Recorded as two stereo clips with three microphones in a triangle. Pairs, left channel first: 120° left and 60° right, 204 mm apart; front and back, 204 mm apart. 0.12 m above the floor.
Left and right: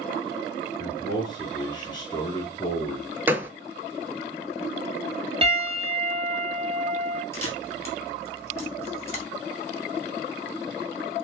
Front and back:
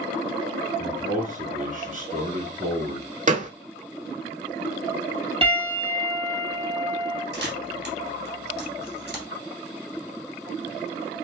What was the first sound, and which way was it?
A man speaking, 175° left.